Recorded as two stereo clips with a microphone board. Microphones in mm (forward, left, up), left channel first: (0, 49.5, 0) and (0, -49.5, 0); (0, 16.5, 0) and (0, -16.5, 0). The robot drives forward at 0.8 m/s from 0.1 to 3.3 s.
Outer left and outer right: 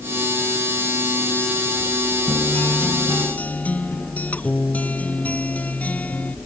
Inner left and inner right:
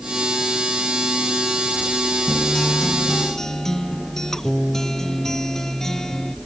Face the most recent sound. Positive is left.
turn(degrees=15)  # may be behind; listen again after turning